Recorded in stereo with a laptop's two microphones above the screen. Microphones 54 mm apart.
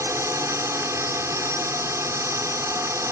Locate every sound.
0.0 s a drone: 65° right (ahead or behind)